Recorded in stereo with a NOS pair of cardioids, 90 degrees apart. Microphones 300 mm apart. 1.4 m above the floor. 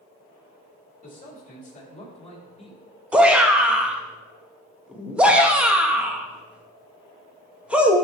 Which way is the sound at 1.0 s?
30° left.